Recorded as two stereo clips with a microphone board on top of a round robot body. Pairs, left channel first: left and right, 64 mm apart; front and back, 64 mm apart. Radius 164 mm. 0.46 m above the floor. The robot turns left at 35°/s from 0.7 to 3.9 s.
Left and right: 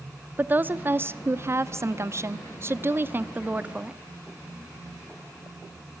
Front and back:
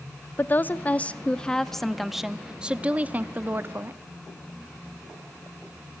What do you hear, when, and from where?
0.4 s a woman speaking: 45° right, 1.2 m; by 4.0 s 155° right, 1.2 m